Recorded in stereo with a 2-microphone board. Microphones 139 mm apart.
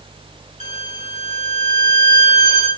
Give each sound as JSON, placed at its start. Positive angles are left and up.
{"t": 0.6, "sound": "a violin", "side_deg": -55, "distance_m": 1.1}